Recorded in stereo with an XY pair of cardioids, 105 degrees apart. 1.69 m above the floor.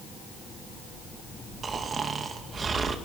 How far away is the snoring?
About 2.5 m.